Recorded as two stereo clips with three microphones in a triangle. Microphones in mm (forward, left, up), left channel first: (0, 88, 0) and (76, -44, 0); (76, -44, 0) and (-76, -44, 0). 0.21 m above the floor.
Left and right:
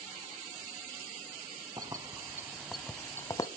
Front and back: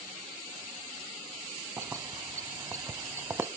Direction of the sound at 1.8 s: 115° right.